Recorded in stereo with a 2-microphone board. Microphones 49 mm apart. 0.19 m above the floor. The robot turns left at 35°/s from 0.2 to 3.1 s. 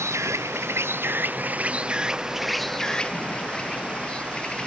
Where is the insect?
100° right; by 4.7 s 160° left.